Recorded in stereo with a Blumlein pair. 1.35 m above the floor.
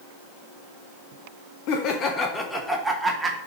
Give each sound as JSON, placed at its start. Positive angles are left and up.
{"t": 1.7, "sound": "laughter", "azimuth_deg": 40, "distance_m": 0.9}